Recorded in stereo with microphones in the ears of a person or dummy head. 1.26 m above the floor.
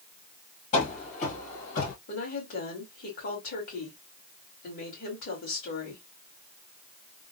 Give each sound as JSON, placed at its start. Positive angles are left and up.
{"t": 0.7, "sound": "running footsteps", "side_deg": 45, "distance_m": 1.7}
{"t": 2.1, "sound": "a woman speaking", "side_deg": 65, "distance_m": 2.5}